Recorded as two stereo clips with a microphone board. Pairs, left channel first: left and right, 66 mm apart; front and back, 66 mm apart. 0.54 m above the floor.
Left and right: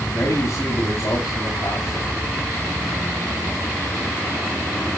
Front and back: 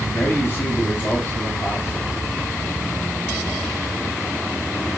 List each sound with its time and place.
0.1 s a man speaking: 50° left, 3 m